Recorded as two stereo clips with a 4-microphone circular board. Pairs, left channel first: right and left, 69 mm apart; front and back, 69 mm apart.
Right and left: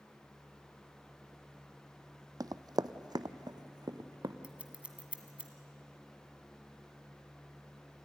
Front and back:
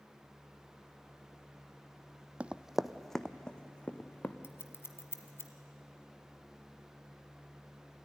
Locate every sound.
2.4 s running footsteps: 110° left, 0.5 m; by 4.3 s 70° left, 1.3 m
4.4 s scissors: 25° left, 1.5 m